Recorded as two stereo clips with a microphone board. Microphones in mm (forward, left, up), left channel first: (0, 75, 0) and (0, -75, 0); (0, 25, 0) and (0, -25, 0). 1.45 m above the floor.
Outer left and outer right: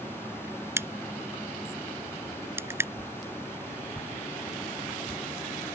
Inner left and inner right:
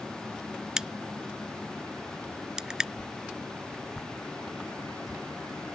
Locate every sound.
0.8 s a crack: 15° right (ahead or behind)
3.0 s a whoosh: 10° right (ahead or behind)